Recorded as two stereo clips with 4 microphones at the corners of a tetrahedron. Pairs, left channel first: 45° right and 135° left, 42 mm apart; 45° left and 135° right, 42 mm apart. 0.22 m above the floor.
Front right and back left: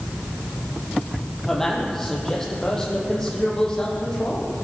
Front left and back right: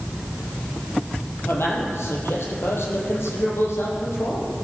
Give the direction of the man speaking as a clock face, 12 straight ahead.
11 o'clock.